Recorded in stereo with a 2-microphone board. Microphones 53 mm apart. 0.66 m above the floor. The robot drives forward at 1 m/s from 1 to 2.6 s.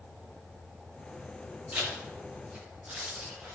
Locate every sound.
1.7 s a zipper: 30° right (ahead or behind), 3 m; by 3.5 s 20° right (ahead or behind), 3.5 m